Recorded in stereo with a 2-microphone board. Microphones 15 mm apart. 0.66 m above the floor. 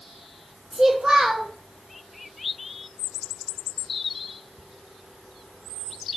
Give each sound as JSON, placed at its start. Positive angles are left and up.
{"t": 0.7, "sound": "a child speaking", "side_deg": -30, "distance_m": 0.7}